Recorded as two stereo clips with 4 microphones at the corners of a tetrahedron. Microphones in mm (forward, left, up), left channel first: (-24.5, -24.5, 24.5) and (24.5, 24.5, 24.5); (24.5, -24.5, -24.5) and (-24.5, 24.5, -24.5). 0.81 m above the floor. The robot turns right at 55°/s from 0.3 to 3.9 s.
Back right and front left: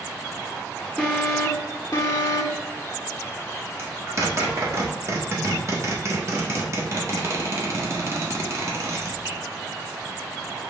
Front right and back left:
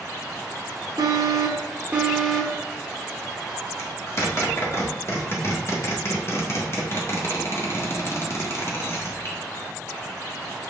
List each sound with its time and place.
1.0 s an alarm: 155° left, 1.2 m; by 2.6 s 115° right, 1.2 m
3.8 s a zipper: 5° right, 1.6 m; by 10.7 s straight ahead, 1.6 m